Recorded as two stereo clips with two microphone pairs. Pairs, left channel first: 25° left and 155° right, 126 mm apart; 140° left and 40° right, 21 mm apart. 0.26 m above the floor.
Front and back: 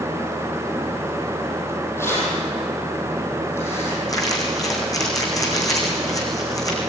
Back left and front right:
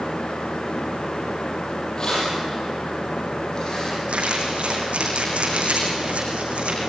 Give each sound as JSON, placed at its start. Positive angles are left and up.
{"t": 2.0, "sound": "keys jangling", "azimuth_deg": 90, "distance_m": 7.0}
{"t": 4.1, "sound": "crumpling", "azimuth_deg": -40, "distance_m": 5.0}